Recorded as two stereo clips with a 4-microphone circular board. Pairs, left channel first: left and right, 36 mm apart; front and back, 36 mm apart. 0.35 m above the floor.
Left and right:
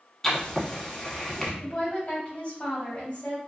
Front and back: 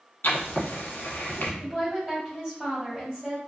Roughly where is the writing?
Ahead.